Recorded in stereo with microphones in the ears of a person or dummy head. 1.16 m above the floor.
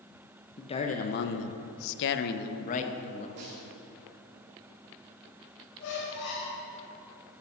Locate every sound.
0.6 s a man speaking: 25° left (ahead or behind), 0.9 m; by 3.3 s 35° left (ahead or behind), 1.5 m
3.4 s a snare drum: 55° right (ahead or behind), 2.5 m
5.8 s a squeak: 65° left (ahead or behind), 4 m